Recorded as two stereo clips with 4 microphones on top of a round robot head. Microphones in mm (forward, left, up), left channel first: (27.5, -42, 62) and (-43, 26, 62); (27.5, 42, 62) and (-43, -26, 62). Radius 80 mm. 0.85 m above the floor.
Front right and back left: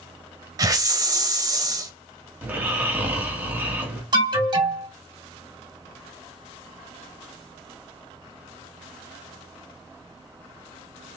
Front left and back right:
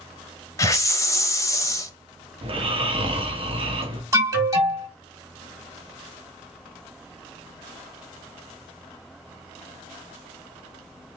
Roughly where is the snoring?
Behind right.